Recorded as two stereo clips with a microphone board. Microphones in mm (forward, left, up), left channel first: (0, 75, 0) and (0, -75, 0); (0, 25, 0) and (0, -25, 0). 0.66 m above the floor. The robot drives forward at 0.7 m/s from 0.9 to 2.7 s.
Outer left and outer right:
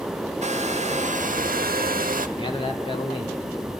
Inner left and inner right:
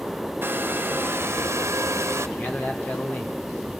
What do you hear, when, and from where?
0.4 s a hair dryer: 50° right (ahead or behind), 1.0 m; by 2.3 s 65° right (ahead or behind), 0.8 m
2.4 s a man speaking: 35° left (ahead or behind), 2 m; by 3.5 s 40° left (ahead or behind), 1.9 m